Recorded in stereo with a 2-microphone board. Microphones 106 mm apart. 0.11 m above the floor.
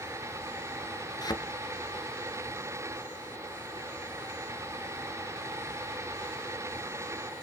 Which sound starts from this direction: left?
A thud, at 1.2 s.